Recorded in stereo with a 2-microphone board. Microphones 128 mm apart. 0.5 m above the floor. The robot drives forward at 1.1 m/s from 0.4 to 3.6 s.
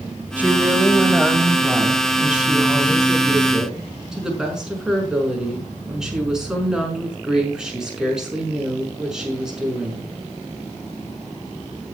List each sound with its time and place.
0.4 s a woman speaking: 10° right (ahead or behind), 2 m; by 10.0 s 5° right (ahead or behind), 5.5 m